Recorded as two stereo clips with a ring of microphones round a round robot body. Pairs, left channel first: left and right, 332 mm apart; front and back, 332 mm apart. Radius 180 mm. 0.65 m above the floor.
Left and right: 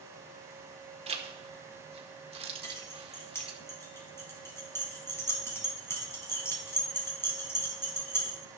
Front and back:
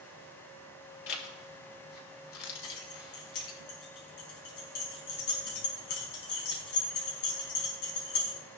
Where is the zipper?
20° right, 1.9 m.